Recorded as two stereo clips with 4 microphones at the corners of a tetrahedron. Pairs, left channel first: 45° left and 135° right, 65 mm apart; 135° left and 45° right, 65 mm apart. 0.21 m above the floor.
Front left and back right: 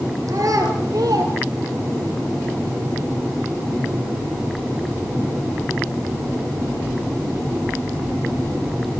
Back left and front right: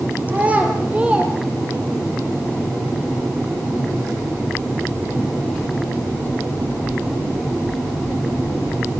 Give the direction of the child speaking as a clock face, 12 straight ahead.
4 o'clock.